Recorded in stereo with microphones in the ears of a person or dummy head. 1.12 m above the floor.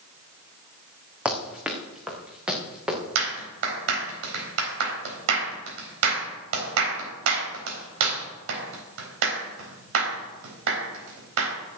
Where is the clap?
80° right, 4 m.